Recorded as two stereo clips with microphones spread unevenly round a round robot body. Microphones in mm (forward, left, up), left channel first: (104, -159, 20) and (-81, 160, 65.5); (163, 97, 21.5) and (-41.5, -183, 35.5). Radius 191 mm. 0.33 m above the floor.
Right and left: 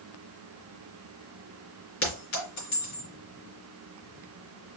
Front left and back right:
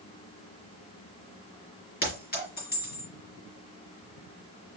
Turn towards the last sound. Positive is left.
turn(degrees=-10)